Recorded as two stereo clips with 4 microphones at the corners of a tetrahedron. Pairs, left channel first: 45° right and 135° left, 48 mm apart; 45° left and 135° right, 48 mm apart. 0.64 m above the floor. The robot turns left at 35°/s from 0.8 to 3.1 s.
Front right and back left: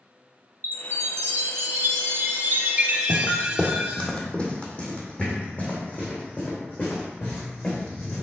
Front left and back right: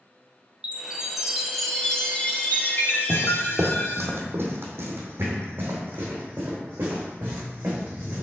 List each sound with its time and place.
0.6 s a chime: 160° left, 0.9 m; by 4.1 s 75° left, 0.9 m
3.1 s footsteps: 115° right, 1.1 m; by 8.2 s 90° right, 3.5 m